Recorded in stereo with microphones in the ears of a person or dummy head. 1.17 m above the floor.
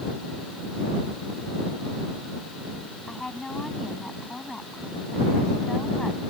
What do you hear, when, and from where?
3.1 s a woman speaking: 5° left (ahead or behind)